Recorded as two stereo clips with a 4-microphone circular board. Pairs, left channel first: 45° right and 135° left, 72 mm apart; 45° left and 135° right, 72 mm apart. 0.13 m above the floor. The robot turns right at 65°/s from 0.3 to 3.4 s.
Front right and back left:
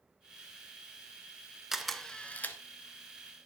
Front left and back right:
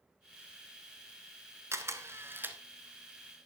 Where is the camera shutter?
145° right, 1.1 m; by 2.6 s 85° right, 1.1 m.